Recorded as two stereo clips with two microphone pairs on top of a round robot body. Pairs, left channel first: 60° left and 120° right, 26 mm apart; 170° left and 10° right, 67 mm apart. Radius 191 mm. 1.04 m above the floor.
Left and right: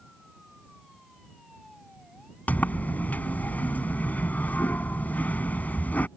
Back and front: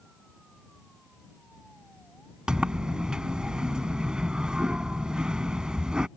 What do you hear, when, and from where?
2.5 s a sliding door: 70° left